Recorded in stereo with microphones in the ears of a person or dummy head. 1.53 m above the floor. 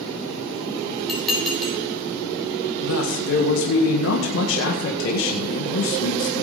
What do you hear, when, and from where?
1.1 s dishes clattering: 5° left (ahead or behind), 4.5 m
2.8 s a man speaking: 65° left (ahead or behind), 1.7 m